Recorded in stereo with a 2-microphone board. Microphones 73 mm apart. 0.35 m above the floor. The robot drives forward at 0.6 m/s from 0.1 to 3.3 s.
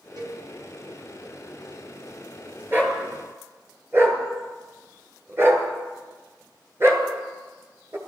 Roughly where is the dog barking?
Right.